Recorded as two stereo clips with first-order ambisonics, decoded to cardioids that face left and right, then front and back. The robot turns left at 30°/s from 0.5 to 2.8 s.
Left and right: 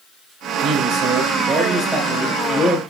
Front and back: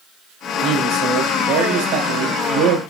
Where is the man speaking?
130° right, 3.5 m; by 2.8 s 165° left, 3.5 m.